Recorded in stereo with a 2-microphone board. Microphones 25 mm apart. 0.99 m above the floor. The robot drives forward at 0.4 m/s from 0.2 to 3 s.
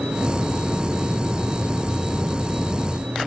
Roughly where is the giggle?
I don't hear a giggle.